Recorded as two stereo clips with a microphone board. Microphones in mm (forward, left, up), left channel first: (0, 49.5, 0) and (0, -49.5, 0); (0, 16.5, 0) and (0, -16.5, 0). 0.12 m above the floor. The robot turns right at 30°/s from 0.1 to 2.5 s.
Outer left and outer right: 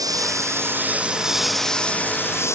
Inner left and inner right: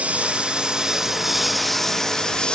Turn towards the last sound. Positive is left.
turn(degrees=30)  # may be behind; listen again after turning